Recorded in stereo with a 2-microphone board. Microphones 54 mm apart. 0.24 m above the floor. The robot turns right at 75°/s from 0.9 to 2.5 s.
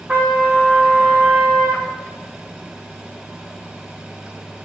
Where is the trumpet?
155° right, 4 m; by 1.9 s 80° right, 4 m.